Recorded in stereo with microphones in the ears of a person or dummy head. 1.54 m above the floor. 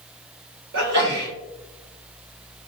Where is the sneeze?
70° right (ahead or behind), 1.9 m.